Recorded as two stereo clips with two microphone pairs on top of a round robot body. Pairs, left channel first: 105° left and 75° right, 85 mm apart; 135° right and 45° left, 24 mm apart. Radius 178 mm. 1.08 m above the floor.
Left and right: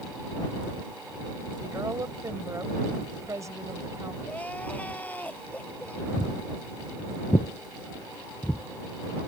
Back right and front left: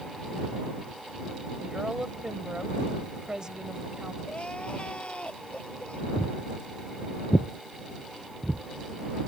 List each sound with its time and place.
1.6 s a woman speaking: 20° right
4.2 s crying: straight behind
6.2 s footsteps: 175° right; by 9.3 s 25° left